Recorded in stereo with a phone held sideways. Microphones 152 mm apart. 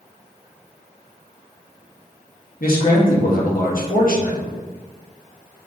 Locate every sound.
2.6 s a man speaking: 70° left (ahead or behind), 1.2 m